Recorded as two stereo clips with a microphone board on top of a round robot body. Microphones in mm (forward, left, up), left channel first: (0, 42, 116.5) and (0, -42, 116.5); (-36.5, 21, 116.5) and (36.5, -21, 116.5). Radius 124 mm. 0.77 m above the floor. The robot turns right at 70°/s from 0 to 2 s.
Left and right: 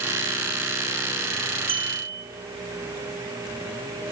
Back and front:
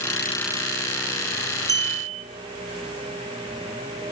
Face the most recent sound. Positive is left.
turn(degrees=-55)